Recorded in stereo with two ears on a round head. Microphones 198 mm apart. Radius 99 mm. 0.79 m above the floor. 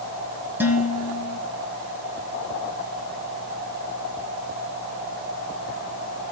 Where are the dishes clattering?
10° right (ahead or behind), 4 m.